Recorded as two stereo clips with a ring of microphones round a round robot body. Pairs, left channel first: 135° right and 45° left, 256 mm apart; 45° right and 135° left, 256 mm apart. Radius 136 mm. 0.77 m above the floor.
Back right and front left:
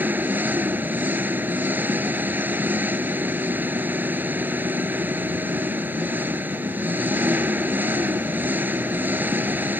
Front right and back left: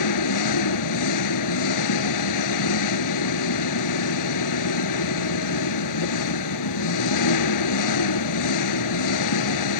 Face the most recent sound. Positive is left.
turn(degrees=-40)